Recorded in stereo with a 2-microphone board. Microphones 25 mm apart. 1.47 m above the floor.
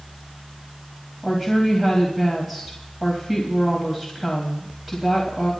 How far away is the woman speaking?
About 2.5 m.